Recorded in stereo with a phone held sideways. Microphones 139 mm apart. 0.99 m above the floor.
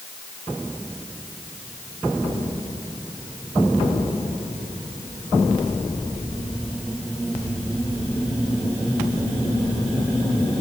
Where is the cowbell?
I don't hear a cowbell.